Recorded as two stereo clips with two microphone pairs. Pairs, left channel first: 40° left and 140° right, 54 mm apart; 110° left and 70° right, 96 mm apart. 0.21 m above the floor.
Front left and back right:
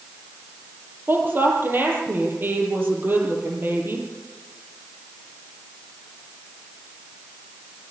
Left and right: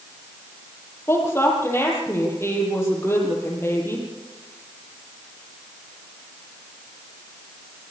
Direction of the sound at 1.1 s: 175° left.